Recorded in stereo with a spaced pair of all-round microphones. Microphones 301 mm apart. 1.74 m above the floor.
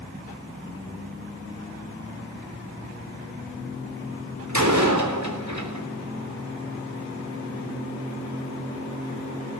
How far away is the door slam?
About 3.5 m.